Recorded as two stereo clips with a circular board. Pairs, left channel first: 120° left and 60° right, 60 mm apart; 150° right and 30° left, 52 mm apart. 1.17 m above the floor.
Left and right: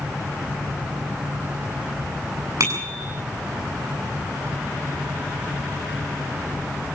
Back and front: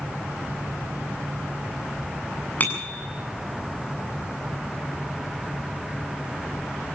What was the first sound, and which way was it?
A bicycle bell, 95° right.